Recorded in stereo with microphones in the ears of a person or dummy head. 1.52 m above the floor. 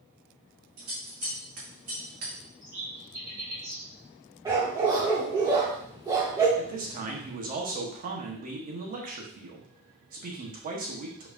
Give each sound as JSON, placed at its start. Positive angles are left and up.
{"t": 0.8, "sound": "scissors", "side_deg": -45, "distance_m": 1.5}
{"t": 2.6, "sound": "a bird", "side_deg": -35, "distance_m": 1.2}
{"t": 4.5, "sound": "a dog barking", "side_deg": -20, "distance_m": 1.3}
{"t": 6.6, "sound": "a man speaking", "side_deg": -35, "distance_m": 1.0}